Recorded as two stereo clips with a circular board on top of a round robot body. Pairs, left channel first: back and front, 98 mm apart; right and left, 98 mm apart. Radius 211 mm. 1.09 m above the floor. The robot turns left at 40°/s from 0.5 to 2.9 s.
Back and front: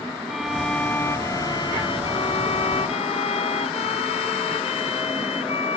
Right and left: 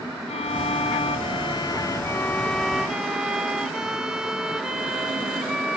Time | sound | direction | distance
0.3 | a violin | 90° right | ?